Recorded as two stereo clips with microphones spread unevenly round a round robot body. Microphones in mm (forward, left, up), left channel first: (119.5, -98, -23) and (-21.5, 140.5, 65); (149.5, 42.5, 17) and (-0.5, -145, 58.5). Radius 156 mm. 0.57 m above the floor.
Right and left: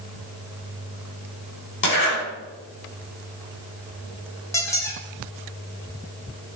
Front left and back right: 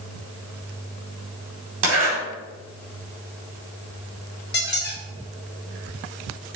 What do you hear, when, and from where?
1.8 s a zipper: 105° right, 3.5 m
4.5 s a squeak: 15° left, 1.5 m